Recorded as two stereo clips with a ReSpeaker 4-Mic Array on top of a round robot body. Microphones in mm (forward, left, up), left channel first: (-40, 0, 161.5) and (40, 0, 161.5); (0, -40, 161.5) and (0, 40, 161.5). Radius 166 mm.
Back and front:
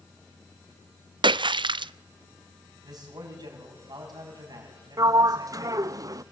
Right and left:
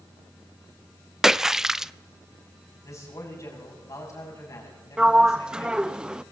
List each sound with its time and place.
1.2 s a splash: 5° left, 0.5 m
2.8 s a man speaking: 40° right, 6.5 m
5.0 s a sliding door: 15° left, 0.6 m